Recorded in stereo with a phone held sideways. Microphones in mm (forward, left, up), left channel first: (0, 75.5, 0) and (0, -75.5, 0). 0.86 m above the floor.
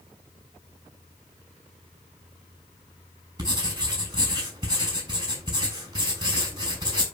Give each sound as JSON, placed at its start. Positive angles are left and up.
{"t": 3.4, "sound": "writing", "side_deg": -25, "distance_m": 7.0}